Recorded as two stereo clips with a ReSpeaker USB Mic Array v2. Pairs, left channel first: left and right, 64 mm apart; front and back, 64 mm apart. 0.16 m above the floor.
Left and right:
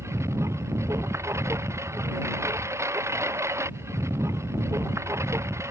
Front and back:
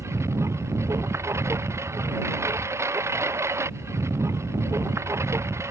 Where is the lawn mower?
135° right.